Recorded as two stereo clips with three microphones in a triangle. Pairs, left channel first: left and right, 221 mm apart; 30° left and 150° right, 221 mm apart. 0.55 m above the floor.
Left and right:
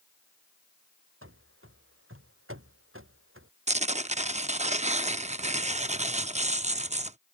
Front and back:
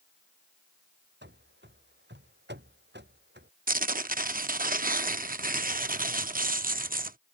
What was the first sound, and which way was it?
Running footsteps, 110° right.